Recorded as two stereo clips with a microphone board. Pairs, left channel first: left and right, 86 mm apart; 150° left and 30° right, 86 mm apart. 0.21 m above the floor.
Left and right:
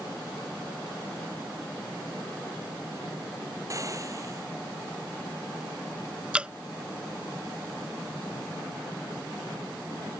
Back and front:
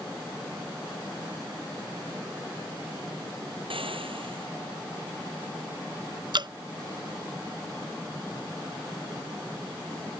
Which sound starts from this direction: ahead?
Dripping, at 6.3 s.